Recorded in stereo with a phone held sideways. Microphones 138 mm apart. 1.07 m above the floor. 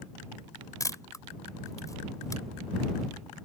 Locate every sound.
0.8 s a camera shutter: 25° left (ahead or behind)